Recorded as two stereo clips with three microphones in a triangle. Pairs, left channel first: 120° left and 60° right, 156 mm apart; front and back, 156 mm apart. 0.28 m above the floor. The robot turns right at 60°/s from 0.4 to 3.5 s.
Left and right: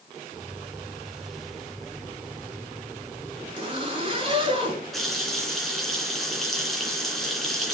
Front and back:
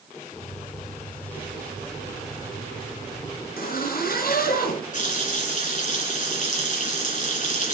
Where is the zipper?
5° right, 4.5 m.